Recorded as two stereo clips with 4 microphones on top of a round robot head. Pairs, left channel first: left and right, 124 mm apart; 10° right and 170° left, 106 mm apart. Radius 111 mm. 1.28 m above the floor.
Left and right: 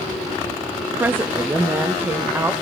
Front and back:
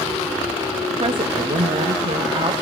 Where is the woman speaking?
165° right, 0.7 m.